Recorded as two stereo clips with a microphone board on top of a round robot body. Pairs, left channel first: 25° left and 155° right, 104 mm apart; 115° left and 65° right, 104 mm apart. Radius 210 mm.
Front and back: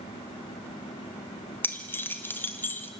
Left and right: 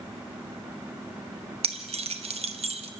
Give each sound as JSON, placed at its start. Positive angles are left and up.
{"t": 1.6, "sound": "keys jangling", "azimuth_deg": -50, "distance_m": 1.2}